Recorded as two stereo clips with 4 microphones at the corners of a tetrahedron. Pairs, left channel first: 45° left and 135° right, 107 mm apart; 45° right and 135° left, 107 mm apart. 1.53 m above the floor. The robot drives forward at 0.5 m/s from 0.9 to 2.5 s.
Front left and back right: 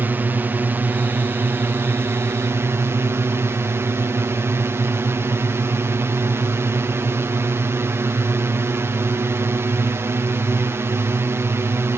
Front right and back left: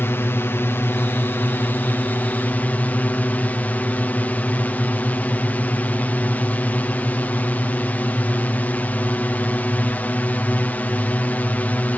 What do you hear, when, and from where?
0.0 s a drone: 85° right; by 12.0 s 100° right